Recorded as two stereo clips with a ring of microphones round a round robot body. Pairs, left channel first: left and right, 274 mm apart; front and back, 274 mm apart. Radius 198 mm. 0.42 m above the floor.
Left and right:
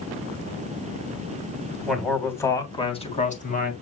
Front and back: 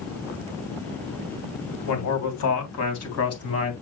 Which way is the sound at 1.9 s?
Straight ahead.